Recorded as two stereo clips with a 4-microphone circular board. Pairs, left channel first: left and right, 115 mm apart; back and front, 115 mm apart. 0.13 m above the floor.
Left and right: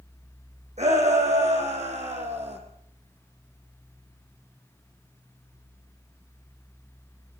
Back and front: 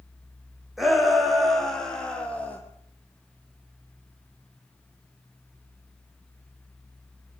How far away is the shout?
About 7.5 m.